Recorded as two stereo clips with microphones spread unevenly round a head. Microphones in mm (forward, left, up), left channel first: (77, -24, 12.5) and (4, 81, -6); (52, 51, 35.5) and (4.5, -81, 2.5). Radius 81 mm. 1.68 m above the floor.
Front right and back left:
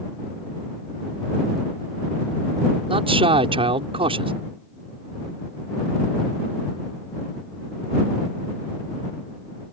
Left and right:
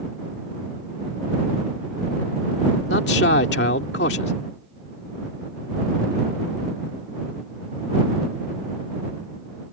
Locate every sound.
2.9 s a man speaking: 80° left